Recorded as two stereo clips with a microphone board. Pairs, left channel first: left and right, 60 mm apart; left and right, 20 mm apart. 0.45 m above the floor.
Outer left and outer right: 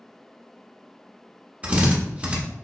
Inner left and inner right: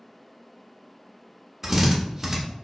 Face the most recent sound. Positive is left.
turn(degrees=-25)  # may be behind; listen again after turning